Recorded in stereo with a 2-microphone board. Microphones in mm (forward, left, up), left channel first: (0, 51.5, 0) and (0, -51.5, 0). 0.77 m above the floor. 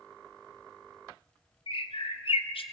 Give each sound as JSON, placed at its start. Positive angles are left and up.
{"t": 1.7, "sound": "a bird", "side_deg": 60, "distance_m": 0.7}